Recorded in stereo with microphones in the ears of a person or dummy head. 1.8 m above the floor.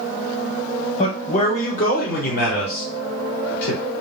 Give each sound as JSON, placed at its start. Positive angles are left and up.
{"t": 1.0, "sound": "a man speaking", "side_deg": 40, "distance_m": 1.2}